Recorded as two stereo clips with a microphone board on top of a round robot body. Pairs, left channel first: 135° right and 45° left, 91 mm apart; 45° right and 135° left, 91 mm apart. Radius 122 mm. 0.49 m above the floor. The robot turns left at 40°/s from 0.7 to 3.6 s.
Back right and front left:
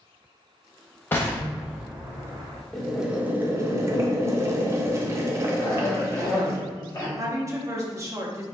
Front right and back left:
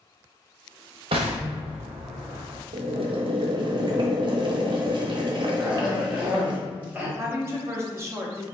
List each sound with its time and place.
1.1 s an explosion: 155° left, 0.5 m; by 2.6 s 95° left, 0.5 m
2.7 s boiling: 140° left, 0.6 m; by 6.6 s 105° left, 0.6 m
5.6 s a cough: 160° right, 1.4 m
7.2 s a woman speaking: 85° left, 1.0 m